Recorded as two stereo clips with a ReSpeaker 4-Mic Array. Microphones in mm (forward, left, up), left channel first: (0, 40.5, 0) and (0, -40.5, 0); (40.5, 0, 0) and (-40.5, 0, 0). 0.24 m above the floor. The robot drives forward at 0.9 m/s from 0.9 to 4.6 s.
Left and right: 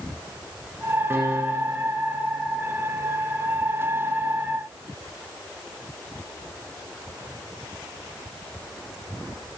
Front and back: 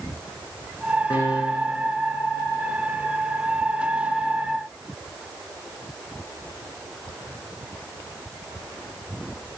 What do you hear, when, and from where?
1.1 s a piano: 25° right, 7 m; by 1.9 s 30° right, 6.5 m